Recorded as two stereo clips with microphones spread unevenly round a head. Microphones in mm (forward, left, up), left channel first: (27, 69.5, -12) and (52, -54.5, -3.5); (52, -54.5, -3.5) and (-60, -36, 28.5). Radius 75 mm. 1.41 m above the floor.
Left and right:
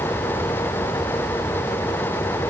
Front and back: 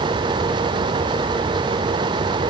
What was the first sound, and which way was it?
Only background noise.